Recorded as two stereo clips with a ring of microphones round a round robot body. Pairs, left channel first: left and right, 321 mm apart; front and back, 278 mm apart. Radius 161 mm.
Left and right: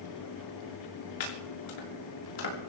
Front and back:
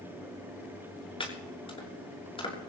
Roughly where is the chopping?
Left.